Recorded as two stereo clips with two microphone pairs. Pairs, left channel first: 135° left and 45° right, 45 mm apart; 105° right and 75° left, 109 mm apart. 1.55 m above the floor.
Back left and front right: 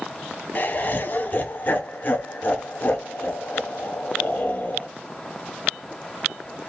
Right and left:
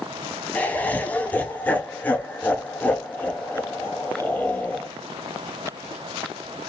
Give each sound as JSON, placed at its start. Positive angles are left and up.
{"t": 0.6, "sound": "laughter", "azimuth_deg": 180, "distance_m": 0.5}